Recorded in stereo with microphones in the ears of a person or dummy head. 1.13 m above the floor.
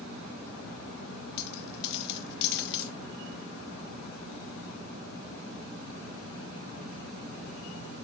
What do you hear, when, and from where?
1.4 s a dropped coin: 60° left (ahead or behind), 0.8 m